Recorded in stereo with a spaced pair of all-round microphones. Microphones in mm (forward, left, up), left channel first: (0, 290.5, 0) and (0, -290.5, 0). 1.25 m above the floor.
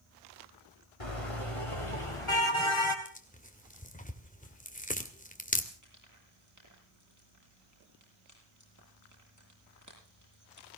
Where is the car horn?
65° left (ahead or behind), 3 m; by 3.0 s 55° left (ahead or behind), 3.5 m.